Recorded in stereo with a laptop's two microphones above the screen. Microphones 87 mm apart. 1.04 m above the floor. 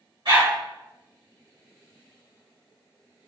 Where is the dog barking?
70° right (ahead or behind), 2.5 m.